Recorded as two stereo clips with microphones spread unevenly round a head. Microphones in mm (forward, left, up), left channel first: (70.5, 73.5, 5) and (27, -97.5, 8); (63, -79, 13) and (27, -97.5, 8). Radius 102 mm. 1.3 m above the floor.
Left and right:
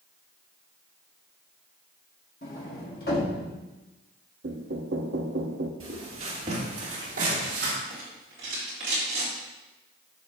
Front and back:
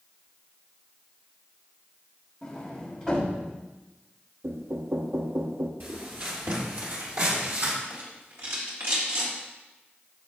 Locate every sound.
2.4 s a sliding door: 125° left, 1.6 m
4.4 s knocking: 145° right, 0.7 m
5.8 s footsteps: 160° right, 1.9 m; by 7.7 s 150° right, 3 m
7.9 s a rattle: 165° right, 3 m